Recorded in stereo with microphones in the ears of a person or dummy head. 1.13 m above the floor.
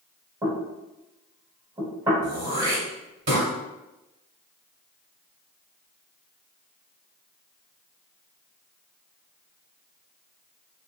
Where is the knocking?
15° right (ahead or behind), 1.1 m.